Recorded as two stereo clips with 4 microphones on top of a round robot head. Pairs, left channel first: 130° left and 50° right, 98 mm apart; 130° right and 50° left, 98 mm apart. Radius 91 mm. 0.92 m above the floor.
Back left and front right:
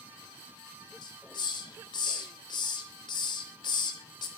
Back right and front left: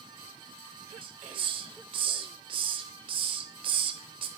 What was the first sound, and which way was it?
A hiss, 85° left.